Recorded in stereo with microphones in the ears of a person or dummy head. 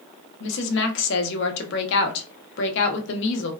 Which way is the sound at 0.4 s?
75° left (ahead or behind).